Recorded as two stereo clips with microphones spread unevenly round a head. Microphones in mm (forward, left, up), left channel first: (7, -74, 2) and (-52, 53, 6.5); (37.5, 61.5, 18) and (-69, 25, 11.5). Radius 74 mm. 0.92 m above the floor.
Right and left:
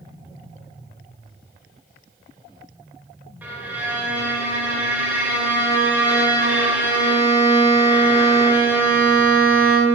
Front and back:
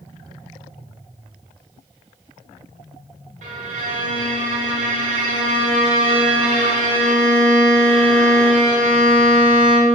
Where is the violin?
170° right, 1.2 m.